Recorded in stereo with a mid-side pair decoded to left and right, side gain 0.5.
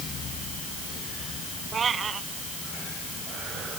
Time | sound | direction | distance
1.7 | a cat meowing | 40° right | ?